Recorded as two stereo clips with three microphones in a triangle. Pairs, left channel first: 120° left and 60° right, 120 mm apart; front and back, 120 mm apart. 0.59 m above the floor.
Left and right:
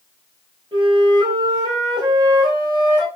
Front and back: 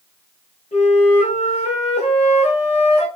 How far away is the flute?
About 1.1 m.